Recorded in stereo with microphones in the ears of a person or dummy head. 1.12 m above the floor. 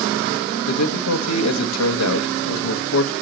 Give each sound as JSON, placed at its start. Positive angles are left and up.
{"t": 0.7, "sound": "a man speaking", "side_deg": 85, "distance_m": 1.2}